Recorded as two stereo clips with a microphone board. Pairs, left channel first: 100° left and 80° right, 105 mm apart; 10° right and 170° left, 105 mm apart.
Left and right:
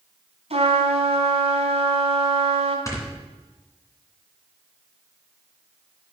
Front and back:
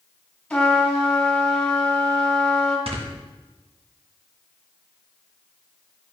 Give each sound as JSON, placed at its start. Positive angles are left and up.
{"t": 0.5, "sound": "a trumpet", "azimuth_deg": -90, "distance_m": 2.5}
{"t": 2.9, "sound": "snoring", "azimuth_deg": 160, "distance_m": 2.0}